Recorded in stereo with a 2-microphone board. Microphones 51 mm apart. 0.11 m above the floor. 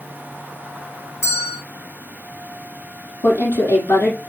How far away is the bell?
About 3.5 m.